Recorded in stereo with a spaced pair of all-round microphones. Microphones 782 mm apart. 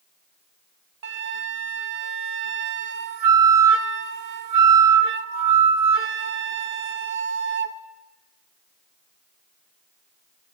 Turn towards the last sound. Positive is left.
turn(degrees=-50)  # may be behind; listen again after turning